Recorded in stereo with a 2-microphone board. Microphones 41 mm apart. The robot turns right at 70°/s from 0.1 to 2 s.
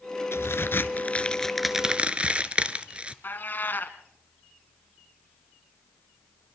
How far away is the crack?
About 0.9 m.